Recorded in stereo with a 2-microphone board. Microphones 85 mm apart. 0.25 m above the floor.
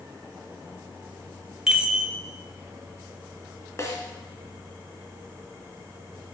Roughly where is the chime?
Centre.